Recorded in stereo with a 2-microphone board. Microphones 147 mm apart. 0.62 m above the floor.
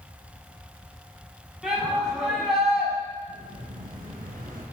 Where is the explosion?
80° right, 5 m.